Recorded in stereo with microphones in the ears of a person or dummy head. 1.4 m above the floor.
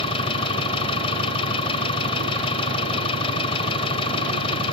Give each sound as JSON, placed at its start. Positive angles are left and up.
{"t": 0.0, "sound": "an engine running", "side_deg": 30}